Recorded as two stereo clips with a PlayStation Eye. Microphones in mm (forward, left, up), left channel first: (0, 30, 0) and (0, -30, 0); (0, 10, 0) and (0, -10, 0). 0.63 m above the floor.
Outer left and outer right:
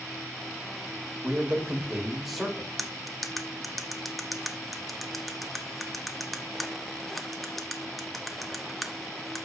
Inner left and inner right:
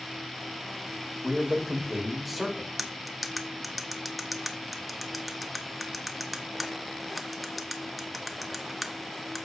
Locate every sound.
1.2 s a man speaking: 25° right (ahead or behind), 2.0 m; by 2.7 s 5° left (ahead or behind), 2 m
2.8 s cutlery clinking: centre (ahead or behind), 0.8 m